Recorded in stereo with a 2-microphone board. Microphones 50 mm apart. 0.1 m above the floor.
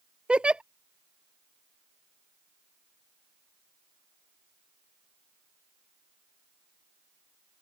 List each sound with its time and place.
0.3 s a giggle: 20° right (ahead or behind)